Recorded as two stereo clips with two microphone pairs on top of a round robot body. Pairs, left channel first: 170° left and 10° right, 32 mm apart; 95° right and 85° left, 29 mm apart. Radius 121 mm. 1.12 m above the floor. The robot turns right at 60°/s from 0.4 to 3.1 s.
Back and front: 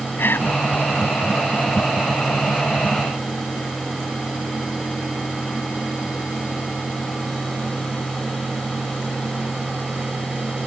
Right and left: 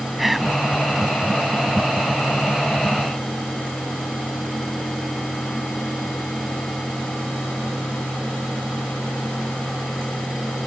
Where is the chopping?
I don't hear chopping.